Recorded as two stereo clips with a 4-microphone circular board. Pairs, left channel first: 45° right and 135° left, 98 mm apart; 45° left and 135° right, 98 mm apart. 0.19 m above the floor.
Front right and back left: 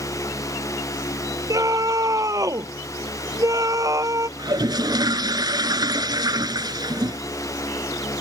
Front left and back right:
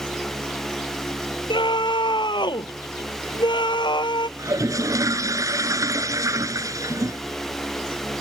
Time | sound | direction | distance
1.5 | a scream | 80° left | ?
4.4 | a toilet flushing | 175° left | ?